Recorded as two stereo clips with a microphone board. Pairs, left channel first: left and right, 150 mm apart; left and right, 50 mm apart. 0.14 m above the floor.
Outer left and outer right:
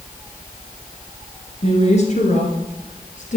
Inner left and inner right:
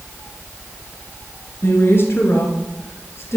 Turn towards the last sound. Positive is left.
turn(degrees=55)  # may be behind; listen again after turning